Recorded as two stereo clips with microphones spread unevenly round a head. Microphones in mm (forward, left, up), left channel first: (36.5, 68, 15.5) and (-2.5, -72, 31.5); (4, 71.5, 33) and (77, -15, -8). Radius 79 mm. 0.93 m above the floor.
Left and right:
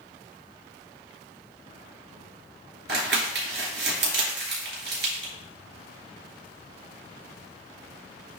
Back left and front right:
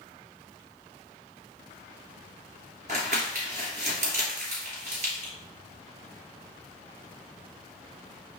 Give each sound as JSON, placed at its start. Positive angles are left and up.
{"t": 2.9, "sound": "crumpling", "azimuth_deg": -100, "distance_m": 3.0}